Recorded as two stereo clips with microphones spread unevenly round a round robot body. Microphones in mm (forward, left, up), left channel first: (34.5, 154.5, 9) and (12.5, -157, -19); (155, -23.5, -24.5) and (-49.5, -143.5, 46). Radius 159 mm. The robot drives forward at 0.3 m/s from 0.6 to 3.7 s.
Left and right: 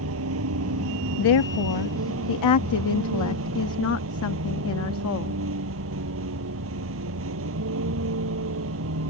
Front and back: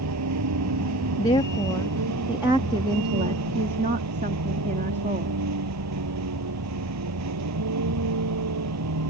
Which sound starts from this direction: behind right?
A vehicle, at 0.0 s.